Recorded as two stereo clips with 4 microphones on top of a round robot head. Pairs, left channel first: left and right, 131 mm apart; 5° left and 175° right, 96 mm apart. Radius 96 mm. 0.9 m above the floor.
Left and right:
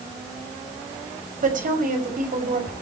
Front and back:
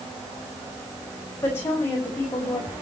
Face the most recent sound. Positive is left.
turn(degrees=-65)